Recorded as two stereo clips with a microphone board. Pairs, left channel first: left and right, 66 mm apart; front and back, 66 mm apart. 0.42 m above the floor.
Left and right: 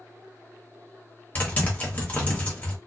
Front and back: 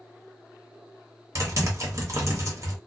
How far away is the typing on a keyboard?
About 1.0 m.